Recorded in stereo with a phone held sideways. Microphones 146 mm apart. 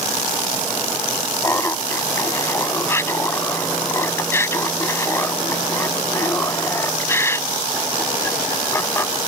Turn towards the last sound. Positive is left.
turn(degrees=15)  # may be behind; listen again after turning